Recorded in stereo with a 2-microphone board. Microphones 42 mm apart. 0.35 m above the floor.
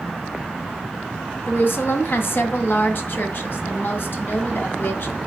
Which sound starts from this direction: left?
A woman speaking, at 1.5 s.